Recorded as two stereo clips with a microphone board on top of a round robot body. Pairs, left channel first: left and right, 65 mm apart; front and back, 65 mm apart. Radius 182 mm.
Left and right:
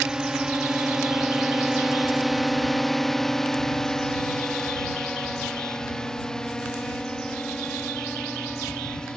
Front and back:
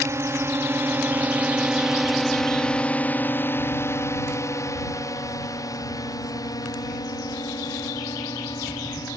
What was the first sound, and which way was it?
A drone, 165° right.